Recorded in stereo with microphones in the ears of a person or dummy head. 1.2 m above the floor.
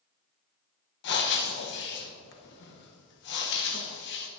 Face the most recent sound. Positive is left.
turn(degrees=60)  # may be behind; listen again after turning